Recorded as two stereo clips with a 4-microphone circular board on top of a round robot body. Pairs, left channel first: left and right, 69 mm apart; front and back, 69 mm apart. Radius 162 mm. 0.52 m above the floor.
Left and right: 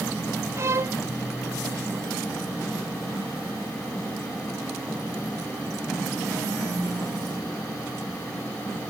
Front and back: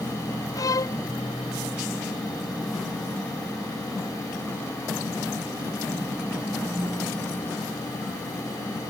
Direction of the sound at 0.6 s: 40° right.